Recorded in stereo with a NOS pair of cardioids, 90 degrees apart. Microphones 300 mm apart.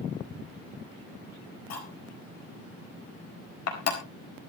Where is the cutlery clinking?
60° left, 4.5 m.